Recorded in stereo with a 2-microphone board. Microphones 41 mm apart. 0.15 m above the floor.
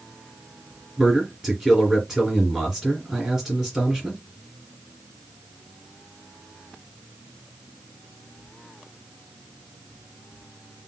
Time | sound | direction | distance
1.0 | a man speaking | 15° right (ahead or behind) | 2.5 m